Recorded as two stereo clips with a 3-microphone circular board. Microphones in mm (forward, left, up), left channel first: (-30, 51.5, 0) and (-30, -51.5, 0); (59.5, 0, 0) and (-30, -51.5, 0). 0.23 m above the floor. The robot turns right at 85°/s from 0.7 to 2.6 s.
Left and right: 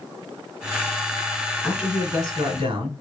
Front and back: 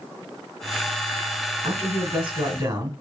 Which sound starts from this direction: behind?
A man speaking, at 1.6 s.